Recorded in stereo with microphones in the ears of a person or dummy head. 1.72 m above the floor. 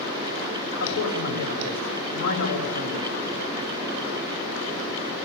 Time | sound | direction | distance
0.8 | a man speaking | 75° left (ahead or behind) | 6.5 m